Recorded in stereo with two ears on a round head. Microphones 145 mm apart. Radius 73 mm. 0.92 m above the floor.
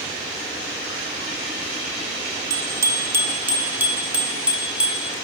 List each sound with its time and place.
2.5 s a bicycle bell: 25° right (ahead or behind), 2 m; by 5.1 s 5° right (ahead or behind), 4 m